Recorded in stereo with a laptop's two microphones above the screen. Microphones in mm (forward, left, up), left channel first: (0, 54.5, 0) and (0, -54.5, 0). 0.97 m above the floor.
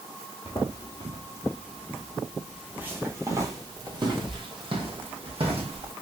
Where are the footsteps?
45° left (ahead or behind), 1.4 m; by 5.9 s 60° right (ahead or behind), 2 m.